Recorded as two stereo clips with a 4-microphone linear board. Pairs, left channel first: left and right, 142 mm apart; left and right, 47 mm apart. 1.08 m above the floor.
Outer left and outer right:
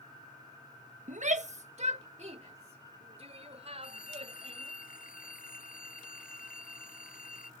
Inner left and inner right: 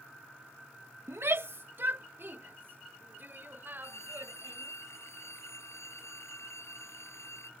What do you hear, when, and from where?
1.1 s a shout: 60° right (ahead or behind); by 4.7 s 45° right (ahead or behind)
3.8 s a phone ringing: 85° left